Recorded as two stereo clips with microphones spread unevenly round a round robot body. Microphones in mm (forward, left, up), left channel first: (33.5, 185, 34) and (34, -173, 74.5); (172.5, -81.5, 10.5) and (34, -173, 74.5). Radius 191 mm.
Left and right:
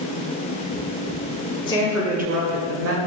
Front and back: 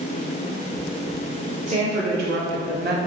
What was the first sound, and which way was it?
A woman speaking, 155° left.